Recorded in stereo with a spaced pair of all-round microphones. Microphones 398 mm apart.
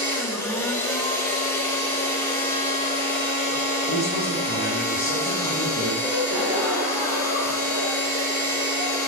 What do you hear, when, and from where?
0.0 s a machine running: 5° left (ahead or behind), 2.0 m
3.9 s a man speaking: 45° right (ahead or behind), 5.5 m
6.0 s a gasp: 80° right, 4.5 m